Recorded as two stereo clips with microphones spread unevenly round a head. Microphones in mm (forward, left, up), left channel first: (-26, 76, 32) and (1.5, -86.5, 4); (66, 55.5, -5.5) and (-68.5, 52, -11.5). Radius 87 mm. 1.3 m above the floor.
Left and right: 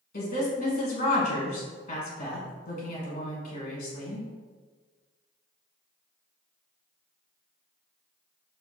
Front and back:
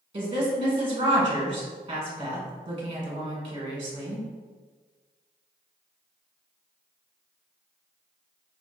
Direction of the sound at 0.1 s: 135° left.